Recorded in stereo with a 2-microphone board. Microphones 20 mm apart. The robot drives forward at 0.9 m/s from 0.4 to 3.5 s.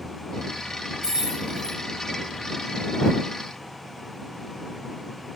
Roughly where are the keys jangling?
Right.